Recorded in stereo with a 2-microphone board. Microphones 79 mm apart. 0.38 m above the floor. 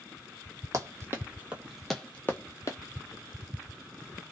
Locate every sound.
0.7 s running footsteps: 45° right (ahead or behind), 0.9 m; by 2.8 s 45° left (ahead or behind), 0.7 m